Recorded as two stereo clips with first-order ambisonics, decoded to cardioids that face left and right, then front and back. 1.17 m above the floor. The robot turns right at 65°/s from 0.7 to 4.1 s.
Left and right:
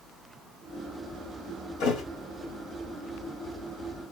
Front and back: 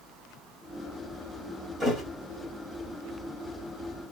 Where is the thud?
105° left, 1.4 m; by 2.0 s 120° left, 1.4 m.